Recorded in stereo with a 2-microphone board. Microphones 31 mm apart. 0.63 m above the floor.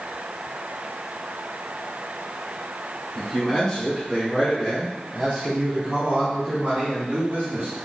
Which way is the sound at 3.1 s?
25° left (ahead or behind).